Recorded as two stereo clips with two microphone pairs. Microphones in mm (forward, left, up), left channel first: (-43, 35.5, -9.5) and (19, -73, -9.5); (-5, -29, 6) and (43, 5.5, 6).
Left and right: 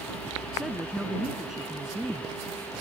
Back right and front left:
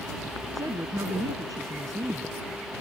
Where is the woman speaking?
25° left.